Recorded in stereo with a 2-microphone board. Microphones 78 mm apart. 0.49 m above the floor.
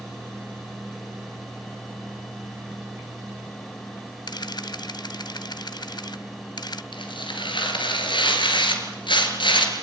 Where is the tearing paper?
90° left, 3 m.